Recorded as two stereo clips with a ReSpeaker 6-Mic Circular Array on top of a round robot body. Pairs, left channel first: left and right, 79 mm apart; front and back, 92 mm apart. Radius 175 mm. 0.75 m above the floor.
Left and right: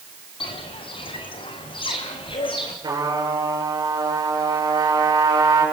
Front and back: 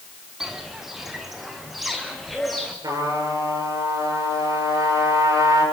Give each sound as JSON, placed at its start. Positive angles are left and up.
{"t": 0.4, "sound": "footsteps", "azimuth_deg": 95, "distance_m": 1.8}
{"t": 2.8, "sound": "a trumpet", "azimuth_deg": -130, "distance_m": 8.0}